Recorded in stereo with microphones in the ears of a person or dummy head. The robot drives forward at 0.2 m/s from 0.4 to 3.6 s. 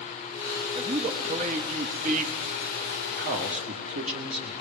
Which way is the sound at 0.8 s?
25° right (ahead or behind).